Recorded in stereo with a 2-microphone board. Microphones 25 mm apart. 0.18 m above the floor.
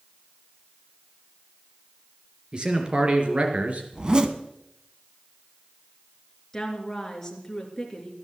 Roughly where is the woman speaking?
Centre.